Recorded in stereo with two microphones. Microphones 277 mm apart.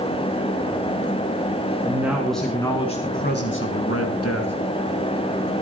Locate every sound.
1.8 s a man speaking: 10° right (ahead or behind), 2.5 m; by 4.5 s 65° left (ahead or behind), 2.5 m